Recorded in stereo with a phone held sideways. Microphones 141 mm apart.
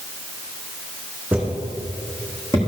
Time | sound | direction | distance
1.3 | footsteps | 10° right (ahead or behind) | 3 m